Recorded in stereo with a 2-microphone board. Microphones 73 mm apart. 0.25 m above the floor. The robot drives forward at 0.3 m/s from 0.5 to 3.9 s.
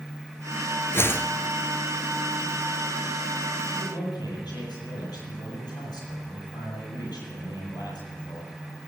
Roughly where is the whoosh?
Left.